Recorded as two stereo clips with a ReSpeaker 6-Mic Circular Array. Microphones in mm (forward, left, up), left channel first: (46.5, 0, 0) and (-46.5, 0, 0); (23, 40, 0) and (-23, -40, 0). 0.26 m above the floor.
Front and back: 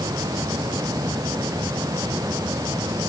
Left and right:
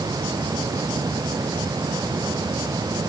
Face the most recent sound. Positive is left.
No sound to turn to.